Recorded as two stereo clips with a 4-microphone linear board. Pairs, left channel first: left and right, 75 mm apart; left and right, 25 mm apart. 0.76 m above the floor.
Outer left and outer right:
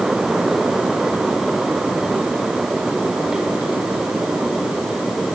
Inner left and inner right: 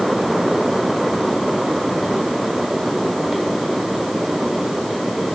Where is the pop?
No pop in this recording.